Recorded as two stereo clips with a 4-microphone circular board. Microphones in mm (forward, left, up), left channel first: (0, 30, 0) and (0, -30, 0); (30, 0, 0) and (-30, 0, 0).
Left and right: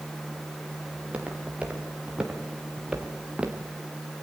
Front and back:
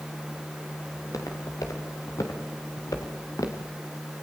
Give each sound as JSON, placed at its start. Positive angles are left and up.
{"t": 0.9, "sound": "footsteps", "azimuth_deg": -20, "distance_m": 7.0}